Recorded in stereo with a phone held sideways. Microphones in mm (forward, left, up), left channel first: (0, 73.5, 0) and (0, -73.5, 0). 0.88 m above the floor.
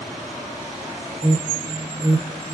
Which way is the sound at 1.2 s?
35° right (ahead or behind).